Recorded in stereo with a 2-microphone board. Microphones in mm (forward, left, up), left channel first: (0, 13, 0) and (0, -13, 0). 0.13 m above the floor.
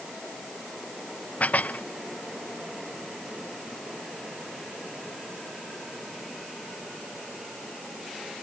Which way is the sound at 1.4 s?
70° left (ahead or behind).